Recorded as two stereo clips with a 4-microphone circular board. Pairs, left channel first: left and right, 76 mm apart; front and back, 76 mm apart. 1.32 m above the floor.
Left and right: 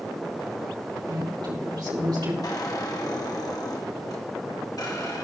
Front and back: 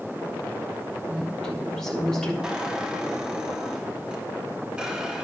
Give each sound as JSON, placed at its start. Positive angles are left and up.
{"t": 1.1, "sound": "a woman speaking", "azimuth_deg": -80, "distance_m": 3.5}
{"t": 2.4, "sound": "a squeak", "azimuth_deg": 105, "distance_m": 1.2}